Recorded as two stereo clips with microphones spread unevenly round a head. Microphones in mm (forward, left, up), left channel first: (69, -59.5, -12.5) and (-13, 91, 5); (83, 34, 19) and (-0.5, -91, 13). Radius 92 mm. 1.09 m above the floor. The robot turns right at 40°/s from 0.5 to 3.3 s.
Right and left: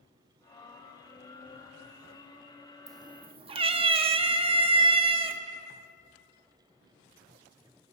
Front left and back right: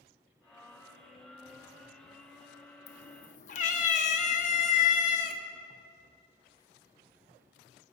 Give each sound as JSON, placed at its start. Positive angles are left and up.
{"t": 2.9, "sound": "a cat meowing", "azimuth_deg": 60, "distance_m": 0.6}